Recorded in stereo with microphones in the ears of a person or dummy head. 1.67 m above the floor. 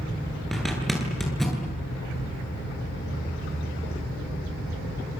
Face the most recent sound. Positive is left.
turn(degrees=0)  # may be behind; listen again after turning